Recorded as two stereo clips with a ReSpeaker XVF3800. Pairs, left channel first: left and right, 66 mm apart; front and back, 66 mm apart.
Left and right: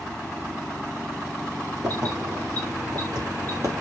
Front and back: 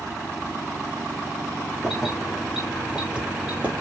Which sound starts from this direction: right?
Keys jangling, at 1.8 s.